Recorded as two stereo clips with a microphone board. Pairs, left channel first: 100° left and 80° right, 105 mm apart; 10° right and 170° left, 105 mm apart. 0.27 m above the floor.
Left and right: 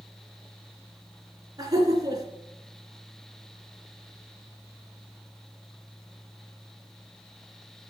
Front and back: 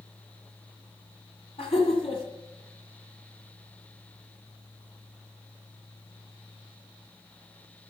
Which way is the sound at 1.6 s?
30° right.